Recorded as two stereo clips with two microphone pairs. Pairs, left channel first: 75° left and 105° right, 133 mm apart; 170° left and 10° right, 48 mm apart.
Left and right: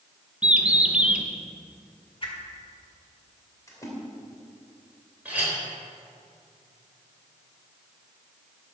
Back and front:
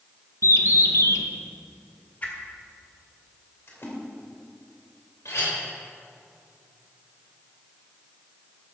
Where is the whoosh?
120° left, 1.9 m.